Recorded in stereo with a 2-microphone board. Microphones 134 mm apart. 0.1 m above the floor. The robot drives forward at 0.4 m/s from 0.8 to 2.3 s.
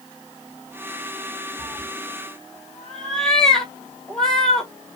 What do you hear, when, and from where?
1.6 s a cat meowing: 5° left (ahead or behind), 0.5 m